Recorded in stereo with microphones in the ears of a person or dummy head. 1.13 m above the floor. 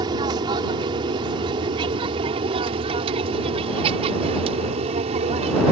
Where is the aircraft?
25° right (ahead or behind); by 5.7 s 35° right (ahead or behind).